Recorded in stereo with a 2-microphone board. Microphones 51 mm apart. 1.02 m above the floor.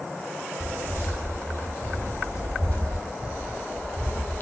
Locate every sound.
0.6 s footsteps: 55° left (ahead or behind), 1.8 m; by 3.0 s 25° left (ahead or behind), 2.5 m
2.0 s footsteps: 65° left (ahead or behind), 2.5 m; by 4.4 s 40° left (ahead or behind), 1.3 m